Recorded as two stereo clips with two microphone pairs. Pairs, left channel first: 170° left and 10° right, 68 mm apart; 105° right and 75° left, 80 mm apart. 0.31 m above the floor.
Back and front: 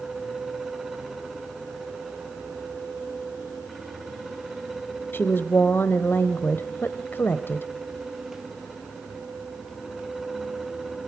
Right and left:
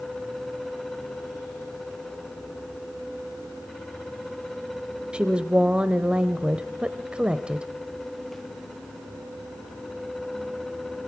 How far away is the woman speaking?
About 1.0 m.